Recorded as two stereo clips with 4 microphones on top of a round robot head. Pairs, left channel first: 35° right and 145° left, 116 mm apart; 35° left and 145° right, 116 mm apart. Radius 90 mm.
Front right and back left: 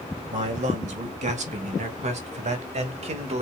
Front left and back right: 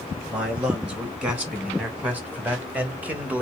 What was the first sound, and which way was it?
A man speaking, 135° left.